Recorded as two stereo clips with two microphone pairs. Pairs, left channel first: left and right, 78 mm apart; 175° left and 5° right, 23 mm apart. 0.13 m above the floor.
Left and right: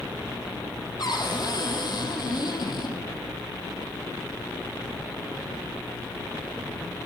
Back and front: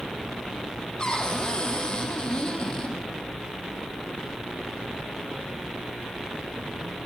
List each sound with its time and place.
1.0 s a cupboard door: 120° left, 4 m